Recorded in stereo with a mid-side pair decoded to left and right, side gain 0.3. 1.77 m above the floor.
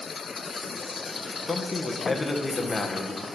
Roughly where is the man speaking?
Ahead left.